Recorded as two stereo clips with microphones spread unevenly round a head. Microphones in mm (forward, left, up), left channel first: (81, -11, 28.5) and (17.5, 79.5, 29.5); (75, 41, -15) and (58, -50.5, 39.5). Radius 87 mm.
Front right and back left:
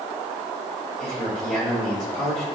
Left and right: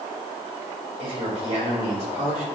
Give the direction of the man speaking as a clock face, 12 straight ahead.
5 o'clock.